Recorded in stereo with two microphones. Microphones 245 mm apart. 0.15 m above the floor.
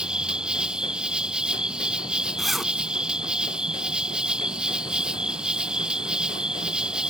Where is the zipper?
Centre (ahead or behind).